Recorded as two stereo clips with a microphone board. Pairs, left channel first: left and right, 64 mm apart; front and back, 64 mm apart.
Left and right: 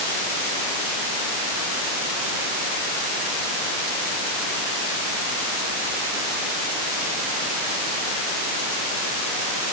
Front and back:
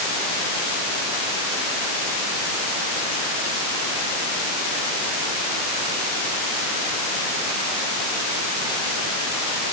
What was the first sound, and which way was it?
Only background noise.